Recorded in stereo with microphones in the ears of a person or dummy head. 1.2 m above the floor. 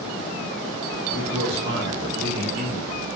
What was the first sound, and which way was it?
A man speaking, 75° right (ahead or behind).